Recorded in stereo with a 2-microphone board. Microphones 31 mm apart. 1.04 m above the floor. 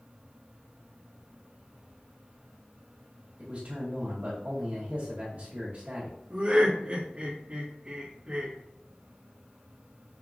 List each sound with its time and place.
3.4 s a man speaking: 45° right (ahead or behind), 1.8 m
6.3 s laughter: 35° right (ahead or behind), 1.6 m